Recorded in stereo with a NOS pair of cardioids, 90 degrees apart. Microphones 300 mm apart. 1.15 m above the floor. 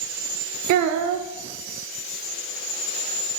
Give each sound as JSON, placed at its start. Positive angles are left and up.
{"t": 0.7, "sound": "a child speaking", "azimuth_deg": -65, "distance_m": 0.5}